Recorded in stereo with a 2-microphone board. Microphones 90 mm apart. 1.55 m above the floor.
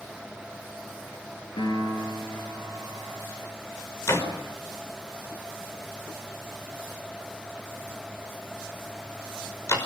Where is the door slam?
35° left (ahead or behind), 5.5 m.